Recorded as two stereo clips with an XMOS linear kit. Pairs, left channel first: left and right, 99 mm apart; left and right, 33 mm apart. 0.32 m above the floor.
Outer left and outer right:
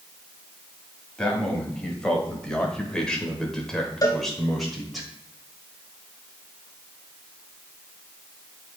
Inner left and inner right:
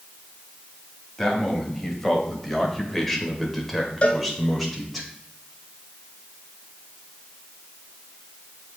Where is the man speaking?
10° left (ahead or behind), 1.9 m; by 5.0 s centre (ahead or behind), 1.4 m.